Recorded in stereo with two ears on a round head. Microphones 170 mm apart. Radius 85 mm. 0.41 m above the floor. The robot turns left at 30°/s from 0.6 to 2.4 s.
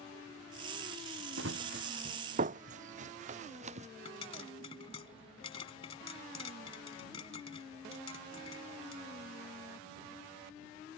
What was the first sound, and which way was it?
Running footsteps, 75° right (ahead or behind).